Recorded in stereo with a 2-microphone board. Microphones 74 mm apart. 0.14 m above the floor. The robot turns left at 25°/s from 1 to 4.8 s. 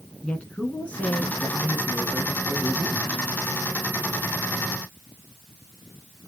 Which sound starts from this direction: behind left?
A woman speaking, at 0.2 s.